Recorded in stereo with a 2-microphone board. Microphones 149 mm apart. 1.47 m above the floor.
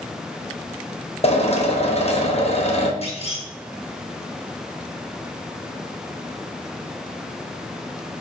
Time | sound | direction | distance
1.2 | a drill | 45° left (ahead or behind) | 1.0 m
3.0 | a clunk | 40° left (ahead or behind) | 1.2 m